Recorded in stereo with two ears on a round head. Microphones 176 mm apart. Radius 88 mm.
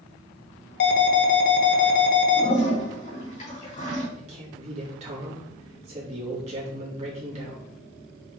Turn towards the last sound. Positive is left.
turn(degrees=-35)  # may be behind; listen again after turning